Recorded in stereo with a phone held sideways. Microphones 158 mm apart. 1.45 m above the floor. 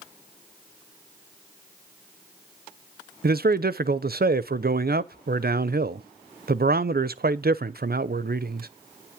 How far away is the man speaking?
About 0.6 m.